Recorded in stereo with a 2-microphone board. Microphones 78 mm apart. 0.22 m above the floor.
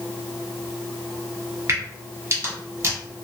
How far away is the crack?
About 1.8 m.